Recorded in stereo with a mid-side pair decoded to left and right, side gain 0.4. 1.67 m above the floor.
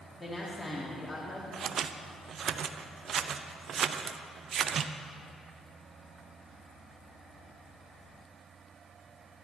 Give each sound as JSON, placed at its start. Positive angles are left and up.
{"t": 0.2, "sound": "a woman speaking", "azimuth_deg": 20, "distance_m": 3.0}
{"t": 1.5, "sound": "scissors", "azimuth_deg": -65, "distance_m": 0.5}